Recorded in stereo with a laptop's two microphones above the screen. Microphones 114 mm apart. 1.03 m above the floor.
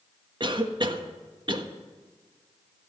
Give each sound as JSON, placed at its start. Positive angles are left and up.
{"t": 0.4, "sound": "a cough", "side_deg": -40, "distance_m": 1.5}